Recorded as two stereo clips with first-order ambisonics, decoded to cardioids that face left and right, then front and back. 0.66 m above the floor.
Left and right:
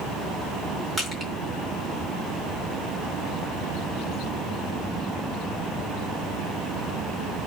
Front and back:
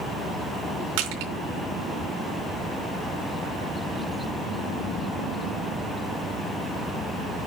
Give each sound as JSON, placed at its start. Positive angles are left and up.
{"t": 1.0, "sound": "crushing", "azimuth_deg": -170, "distance_m": 3.5}